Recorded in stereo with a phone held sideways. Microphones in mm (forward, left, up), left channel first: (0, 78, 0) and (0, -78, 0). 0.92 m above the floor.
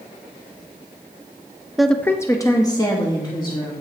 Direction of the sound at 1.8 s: Centre (ahead or behind).